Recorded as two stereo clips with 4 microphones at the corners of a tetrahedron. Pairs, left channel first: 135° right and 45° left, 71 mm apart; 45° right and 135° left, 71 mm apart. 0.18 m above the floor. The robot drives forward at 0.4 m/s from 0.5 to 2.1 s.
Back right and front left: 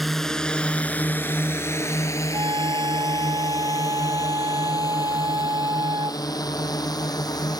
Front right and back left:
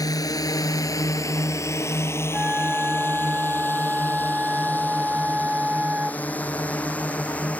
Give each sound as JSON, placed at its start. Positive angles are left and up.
{"t": 0.0, "sound": "a drone", "azimuth_deg": -45}
{"t": 2.3, "sound": "a flute", "azimuth_deg": 65}